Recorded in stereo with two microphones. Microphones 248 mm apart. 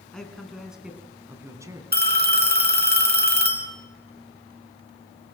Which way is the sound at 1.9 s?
40° right (ahead or behind).